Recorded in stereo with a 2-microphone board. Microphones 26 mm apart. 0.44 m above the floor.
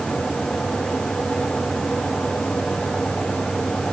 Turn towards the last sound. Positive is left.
No sound to turn to.